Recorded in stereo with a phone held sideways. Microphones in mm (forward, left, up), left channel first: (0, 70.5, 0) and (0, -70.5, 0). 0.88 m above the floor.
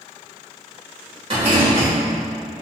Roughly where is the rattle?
Right.